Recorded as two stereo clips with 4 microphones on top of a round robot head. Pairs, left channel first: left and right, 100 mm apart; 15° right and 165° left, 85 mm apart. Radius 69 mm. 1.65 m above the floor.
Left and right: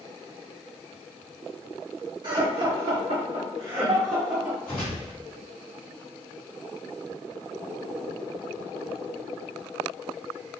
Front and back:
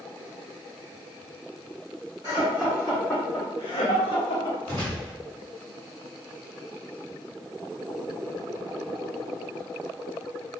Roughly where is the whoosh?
Behind.